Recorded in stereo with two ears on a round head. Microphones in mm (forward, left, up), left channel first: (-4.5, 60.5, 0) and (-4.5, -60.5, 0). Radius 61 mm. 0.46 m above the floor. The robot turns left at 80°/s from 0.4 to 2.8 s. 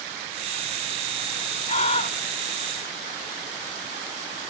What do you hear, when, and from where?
1.7 s a scream: 95° left, 1.6 m; by 2.2 s 55° left, 1.6 m